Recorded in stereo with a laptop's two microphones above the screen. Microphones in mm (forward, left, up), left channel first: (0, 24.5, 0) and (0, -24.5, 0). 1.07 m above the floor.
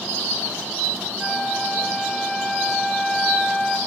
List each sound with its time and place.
1.2 s a flute: 5° left (ahead or behind), 1.0 m